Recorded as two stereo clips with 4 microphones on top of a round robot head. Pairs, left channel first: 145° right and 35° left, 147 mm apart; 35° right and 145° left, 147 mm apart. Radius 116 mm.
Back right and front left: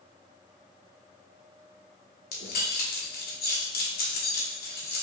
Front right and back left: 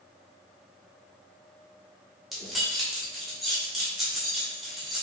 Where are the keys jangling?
125° right, 1.1 m.